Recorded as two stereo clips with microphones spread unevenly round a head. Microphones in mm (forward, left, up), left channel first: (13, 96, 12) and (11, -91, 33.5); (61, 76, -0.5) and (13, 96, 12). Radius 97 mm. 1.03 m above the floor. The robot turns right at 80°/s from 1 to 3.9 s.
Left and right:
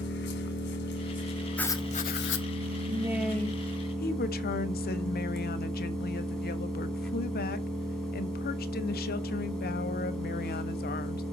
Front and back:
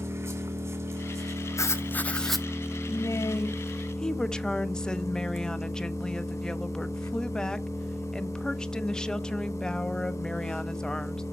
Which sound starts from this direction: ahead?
Writing, at 1.6 s.